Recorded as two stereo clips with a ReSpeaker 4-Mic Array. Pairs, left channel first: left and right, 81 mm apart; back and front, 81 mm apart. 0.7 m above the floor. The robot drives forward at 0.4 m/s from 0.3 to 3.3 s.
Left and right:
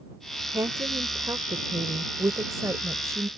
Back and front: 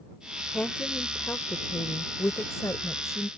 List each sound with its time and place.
0.5 s a woman speaking: 110° right; by 3.3 s 135° right